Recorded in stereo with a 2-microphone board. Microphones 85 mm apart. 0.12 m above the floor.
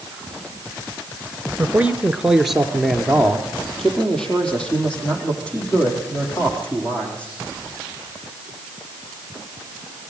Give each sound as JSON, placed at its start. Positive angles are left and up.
{"t": 1.6, "sound": "a man speaking", "side_deg": -20, "distance_m": 1.2}